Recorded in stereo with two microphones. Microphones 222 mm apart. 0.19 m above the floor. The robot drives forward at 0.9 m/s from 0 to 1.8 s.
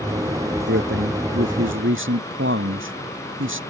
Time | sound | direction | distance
0.7 | a man speaking | 55° right (ahead or behind) | ?